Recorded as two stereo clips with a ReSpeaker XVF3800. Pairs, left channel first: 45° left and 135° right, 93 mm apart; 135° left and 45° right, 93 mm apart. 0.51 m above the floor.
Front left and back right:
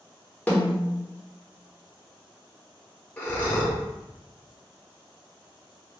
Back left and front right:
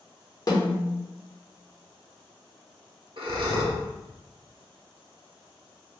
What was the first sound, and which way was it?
A snare drum, 115° left.